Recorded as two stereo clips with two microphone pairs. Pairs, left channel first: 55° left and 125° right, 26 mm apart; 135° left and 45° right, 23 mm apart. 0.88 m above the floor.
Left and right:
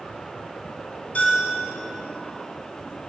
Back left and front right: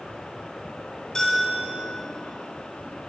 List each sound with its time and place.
1.1 s a bell: 70° left, 2.5 m